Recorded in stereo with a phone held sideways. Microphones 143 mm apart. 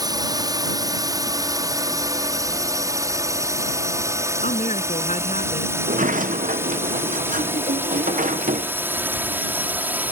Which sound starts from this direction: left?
A woman speaking, at 4.4 s.